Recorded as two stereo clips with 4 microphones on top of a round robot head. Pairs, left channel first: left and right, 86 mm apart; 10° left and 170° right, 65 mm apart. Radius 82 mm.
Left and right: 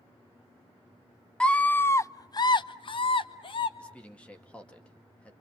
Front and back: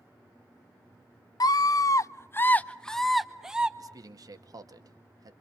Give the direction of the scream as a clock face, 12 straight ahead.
12 o'clock.